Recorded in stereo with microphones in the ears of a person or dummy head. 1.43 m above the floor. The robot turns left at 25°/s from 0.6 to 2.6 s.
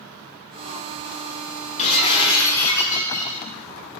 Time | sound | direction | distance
1.8 | breaking glass | 45° left (ahead or behind) | 8 m